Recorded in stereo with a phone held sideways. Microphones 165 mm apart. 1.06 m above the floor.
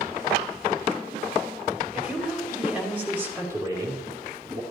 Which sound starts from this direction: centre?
A woman speaking, at 1.9 s.